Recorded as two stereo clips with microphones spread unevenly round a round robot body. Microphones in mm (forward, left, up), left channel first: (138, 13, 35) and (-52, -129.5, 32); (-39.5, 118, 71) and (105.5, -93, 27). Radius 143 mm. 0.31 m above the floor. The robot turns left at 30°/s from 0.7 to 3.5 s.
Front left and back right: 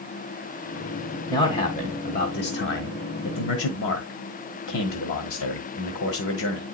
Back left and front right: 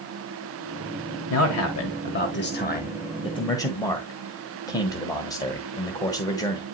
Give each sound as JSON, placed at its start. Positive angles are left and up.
{"t": 1.3, "sound": "a man speaking", "azimuth_deg": 110, "distance_m": 1.4}